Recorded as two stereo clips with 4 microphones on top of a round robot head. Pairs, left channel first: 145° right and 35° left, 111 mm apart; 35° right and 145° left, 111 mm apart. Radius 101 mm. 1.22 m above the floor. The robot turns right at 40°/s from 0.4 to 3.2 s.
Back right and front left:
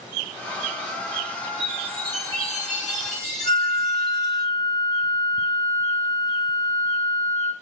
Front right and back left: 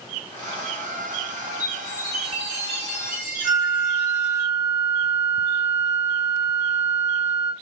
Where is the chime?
65° left, 1.2 m; by 4.4 s 130° left, 1.2 m.